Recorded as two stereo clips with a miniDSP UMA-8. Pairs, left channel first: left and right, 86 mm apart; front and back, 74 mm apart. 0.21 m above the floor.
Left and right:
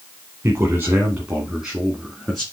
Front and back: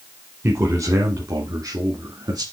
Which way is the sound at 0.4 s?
140° right.